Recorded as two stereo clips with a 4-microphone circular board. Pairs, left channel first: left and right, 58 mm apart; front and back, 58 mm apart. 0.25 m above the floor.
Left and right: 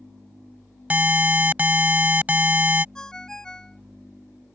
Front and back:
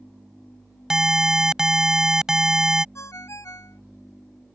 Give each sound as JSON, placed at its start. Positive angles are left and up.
{"t": 0.9, "sound": "an alarm", "azimuth_deg": -110}
{"t": 3.0, "sound": "a ringtone", "azimuth_deg": 10}